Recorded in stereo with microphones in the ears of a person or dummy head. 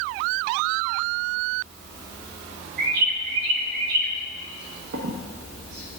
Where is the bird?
55° right (ahead or behind), 0.8 m.